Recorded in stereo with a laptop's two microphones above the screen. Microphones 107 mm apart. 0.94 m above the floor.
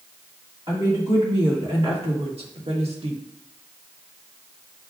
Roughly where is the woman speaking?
Right.